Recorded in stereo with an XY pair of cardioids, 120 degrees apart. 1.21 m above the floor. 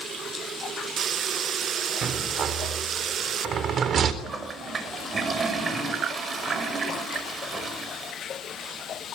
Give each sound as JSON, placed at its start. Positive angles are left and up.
{"t": 2.0, "sound": "a rattle", "azimuth_deg": -50, "distance_m": 3.5}
{"t": 4.2, "sound": "a toilet flushing", "azimuth_deg": -35, "distance_m": 5.5}